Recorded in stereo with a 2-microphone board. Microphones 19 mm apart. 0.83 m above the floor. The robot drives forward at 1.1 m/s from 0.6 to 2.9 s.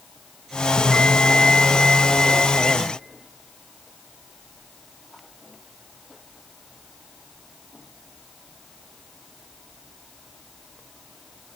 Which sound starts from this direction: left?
A bell, at 0.8 s.